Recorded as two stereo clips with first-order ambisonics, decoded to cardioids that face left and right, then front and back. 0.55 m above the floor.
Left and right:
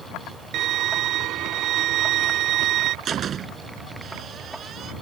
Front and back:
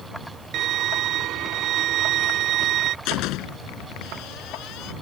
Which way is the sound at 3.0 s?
30° right.